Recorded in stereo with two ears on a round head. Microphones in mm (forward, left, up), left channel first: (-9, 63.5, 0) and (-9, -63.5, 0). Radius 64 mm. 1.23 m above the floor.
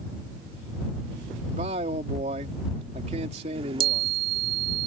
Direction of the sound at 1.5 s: 45° right (ahead or behind).